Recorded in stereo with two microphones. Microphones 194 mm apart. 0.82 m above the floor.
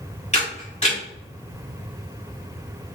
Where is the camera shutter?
30° left (ahead or behind), 1.7 m.